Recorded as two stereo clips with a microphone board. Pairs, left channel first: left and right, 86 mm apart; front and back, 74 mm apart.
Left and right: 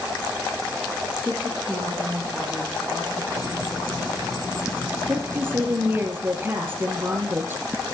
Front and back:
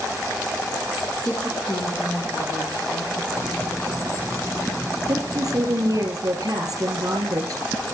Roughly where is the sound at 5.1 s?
Behind right.